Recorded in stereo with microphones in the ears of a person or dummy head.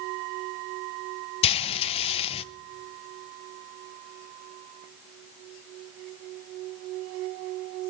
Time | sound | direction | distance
1.4 | frying | 30° left (ahead or behind) | 0.5 m